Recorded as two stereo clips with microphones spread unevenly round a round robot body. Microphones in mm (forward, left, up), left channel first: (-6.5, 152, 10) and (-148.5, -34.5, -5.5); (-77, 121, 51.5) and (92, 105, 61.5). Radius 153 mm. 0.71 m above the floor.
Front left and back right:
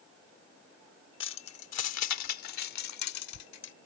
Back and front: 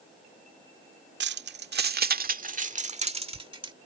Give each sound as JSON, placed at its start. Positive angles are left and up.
{"t": 1.2, "sound": "keys jangling", "azimuth_deg": 0}